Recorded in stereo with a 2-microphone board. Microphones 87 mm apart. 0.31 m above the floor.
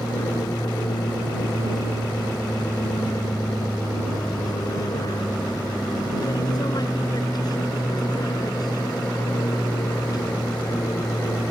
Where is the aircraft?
55° left (ahead or behind).